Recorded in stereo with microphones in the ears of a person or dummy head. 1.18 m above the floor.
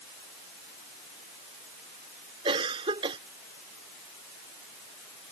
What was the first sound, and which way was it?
A cough, 20° right (ahead or behind).